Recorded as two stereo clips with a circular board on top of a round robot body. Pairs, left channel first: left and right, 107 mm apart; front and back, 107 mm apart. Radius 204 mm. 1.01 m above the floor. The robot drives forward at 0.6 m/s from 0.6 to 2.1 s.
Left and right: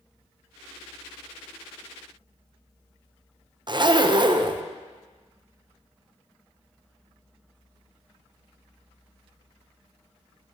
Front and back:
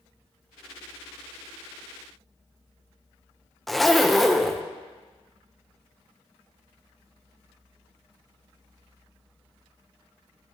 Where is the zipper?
90° right, 0.8 m.